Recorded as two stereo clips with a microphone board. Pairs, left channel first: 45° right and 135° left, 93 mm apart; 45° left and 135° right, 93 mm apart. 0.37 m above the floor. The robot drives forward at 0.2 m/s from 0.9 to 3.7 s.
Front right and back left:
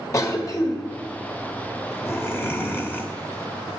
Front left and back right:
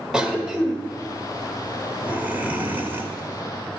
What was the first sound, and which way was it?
A cough, 60° right.